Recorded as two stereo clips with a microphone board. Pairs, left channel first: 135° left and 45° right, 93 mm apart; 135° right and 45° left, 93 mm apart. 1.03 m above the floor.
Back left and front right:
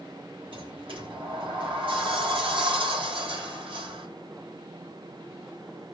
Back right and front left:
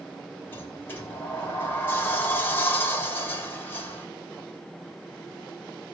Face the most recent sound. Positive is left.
turn(degrees=-65)